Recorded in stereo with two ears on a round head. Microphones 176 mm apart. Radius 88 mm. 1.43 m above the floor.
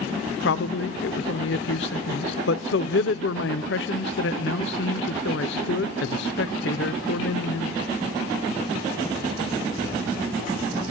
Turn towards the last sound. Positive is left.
turn(degrees=65)  # may be behind; listen again after turning